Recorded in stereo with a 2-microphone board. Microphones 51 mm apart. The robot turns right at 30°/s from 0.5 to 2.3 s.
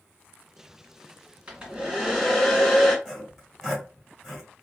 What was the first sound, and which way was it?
A hair dryer, 30° right (ahead or behind).